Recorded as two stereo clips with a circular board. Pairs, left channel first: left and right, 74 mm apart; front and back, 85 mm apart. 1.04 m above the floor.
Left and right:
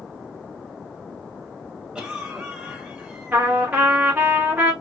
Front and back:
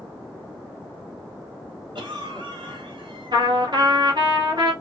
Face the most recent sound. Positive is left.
turn(degrees=-150)